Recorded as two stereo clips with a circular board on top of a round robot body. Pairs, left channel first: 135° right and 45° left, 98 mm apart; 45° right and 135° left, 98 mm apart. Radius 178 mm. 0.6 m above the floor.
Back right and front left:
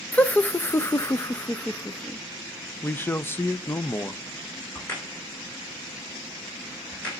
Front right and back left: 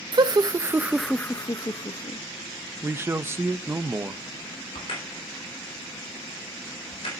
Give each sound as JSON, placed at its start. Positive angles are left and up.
{"t": 0.1, "sound": "laughter", "azimuth_deg": 155, "distance_m": 0.9}
{"t": 2.8, "sound": "a man speaking", "azimuth_deg": 180, "distance_m": 0.7}
{"t": 4.8, "sound": "a crack", "azimuth_deg": -60, "distance_m": 5.0}